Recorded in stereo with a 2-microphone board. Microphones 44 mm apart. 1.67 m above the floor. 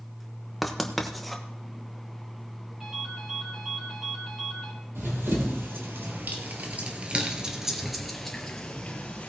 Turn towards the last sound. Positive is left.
turn(degrees=30)  # may be behind; listen again after turning